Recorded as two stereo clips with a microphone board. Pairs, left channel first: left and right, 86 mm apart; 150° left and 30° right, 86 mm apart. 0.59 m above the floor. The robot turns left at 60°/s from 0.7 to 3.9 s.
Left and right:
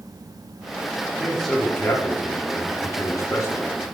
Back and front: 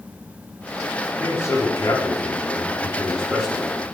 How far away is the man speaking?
About 1.3 m.